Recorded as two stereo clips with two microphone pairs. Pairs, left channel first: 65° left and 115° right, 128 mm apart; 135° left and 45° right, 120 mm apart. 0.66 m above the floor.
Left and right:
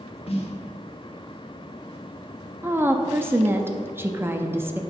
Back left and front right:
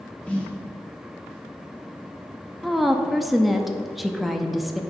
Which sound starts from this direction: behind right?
A woman speaking, at 2.6 s.